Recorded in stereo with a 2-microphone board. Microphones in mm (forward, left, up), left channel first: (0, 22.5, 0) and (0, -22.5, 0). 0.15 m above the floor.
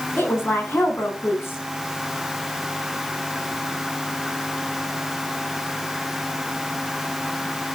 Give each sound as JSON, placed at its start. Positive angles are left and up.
{"t": 0.2, "sound": "a woman speaking", "side_deg": 65, "distance_m": 9.5}